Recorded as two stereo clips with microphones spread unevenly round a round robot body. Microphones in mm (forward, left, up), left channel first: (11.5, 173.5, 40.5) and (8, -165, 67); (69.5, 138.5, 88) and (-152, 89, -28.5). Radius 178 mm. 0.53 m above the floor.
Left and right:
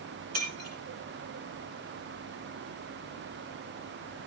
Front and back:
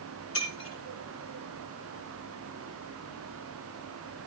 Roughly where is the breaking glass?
Ahead right.